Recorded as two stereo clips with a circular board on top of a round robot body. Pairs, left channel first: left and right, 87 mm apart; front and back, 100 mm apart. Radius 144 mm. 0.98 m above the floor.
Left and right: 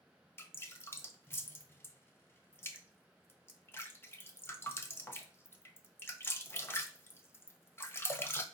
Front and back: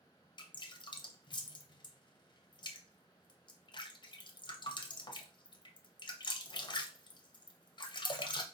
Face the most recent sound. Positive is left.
turn(degrees=30)